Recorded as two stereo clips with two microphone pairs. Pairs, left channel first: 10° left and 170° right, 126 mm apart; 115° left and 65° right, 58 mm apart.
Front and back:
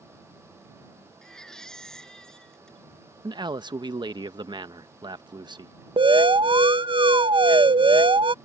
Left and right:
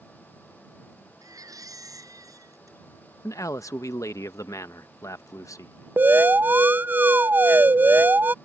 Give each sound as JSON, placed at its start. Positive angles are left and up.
{"t": 1.2, "sound": "a baby crying", "azimuth_deg": -75}
{"t": 3.2, "sound": "a man speaking", "azimuth_deg": 140}
{"t": 6.0, "sound": "an alarm", "azimuth_deg": -120}